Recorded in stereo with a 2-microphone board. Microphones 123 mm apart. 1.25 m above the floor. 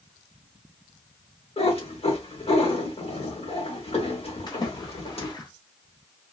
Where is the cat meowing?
55° left (ahead or behind), 2 m.